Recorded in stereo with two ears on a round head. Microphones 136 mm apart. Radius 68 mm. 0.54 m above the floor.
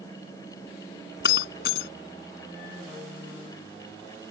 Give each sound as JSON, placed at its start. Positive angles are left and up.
{"t": 1.2, "sound": "breaking glass", "side_deg": 85}